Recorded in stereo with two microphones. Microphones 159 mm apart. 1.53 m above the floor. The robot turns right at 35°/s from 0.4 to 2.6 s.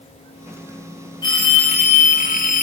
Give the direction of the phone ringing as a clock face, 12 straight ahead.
11 o'clock.